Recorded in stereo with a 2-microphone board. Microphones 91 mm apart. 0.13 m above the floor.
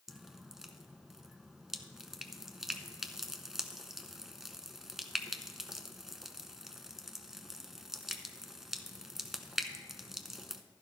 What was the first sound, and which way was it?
Dripping, 5° right (ahead or behind).